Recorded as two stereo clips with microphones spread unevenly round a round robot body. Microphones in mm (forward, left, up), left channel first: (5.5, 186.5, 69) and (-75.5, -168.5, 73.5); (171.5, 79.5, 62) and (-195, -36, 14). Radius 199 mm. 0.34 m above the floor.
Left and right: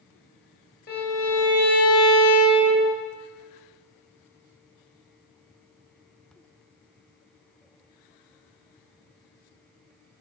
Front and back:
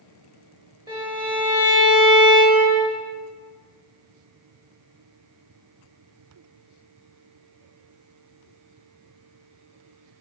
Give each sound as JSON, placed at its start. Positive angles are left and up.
{"t": 0.9, "sound": "a violin", "azimuth_deg": 130, "distance_m": 1.3}